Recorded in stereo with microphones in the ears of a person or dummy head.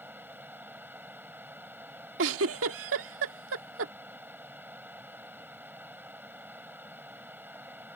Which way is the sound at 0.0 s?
10° right (ahead or behind).